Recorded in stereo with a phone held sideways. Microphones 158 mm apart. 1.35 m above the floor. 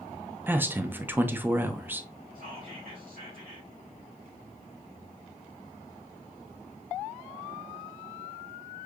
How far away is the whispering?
About 2.5 m.